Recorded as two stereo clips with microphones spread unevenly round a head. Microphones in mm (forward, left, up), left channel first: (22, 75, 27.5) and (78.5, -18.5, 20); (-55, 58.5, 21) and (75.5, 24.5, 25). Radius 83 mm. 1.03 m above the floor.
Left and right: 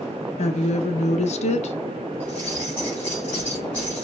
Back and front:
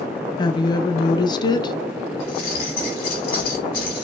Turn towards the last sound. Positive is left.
turn(degrees=-155)